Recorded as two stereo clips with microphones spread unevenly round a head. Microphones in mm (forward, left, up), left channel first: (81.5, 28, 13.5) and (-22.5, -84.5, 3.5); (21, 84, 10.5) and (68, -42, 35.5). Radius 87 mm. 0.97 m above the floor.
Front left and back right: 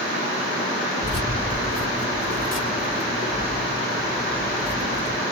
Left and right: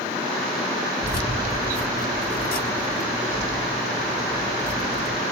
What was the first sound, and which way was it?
Keys jangling, 115° left.